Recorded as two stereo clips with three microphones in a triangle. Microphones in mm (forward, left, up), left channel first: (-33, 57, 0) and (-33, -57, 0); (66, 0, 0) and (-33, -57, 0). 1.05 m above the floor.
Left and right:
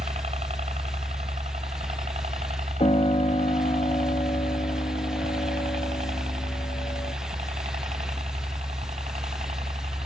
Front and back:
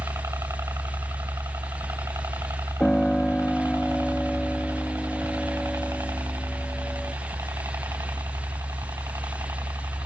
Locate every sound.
0.0 s a helicopter: 85° right; by 10.1 s 90° right
2.8 s a piano: 110° left